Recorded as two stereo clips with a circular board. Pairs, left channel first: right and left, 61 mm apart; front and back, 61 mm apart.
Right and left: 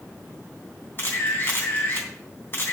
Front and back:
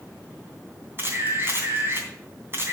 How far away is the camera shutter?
About 3 m.